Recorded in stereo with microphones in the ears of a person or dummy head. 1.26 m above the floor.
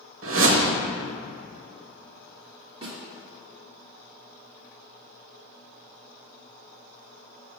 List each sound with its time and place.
0.2 s a whoosh: 70° right (ahead or behind), 1.0 m
2.8 s a snare drum: 25° right (ahead or behind), 1.8 m